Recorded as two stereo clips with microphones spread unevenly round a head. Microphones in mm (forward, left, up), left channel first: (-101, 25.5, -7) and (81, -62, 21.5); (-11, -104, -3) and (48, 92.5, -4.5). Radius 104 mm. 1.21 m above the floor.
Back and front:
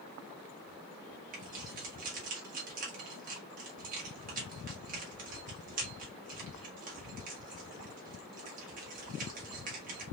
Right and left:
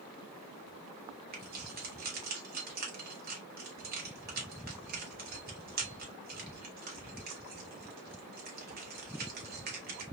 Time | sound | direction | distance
1.3 | keys jangling | 30° left | 2.0 m